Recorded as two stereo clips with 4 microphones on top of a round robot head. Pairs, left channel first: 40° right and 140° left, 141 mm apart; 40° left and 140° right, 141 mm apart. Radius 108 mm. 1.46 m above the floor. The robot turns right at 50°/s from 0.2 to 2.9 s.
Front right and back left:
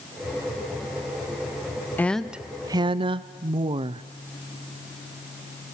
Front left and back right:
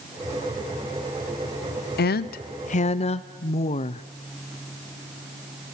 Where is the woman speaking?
40° left, 0.6 m; by 4.0 s 85° left, 0.6 m.